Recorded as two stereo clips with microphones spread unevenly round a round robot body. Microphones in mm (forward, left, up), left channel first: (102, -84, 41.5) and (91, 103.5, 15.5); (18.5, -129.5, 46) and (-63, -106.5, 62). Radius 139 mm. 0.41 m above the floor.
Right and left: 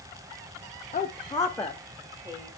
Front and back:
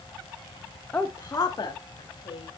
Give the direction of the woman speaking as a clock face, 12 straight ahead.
2 o'clock.